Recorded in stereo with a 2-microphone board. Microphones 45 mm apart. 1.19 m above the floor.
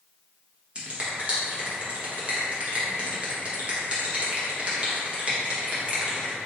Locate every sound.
0.8 s a finger snap: 30° right (ahead or behind), 1.0 m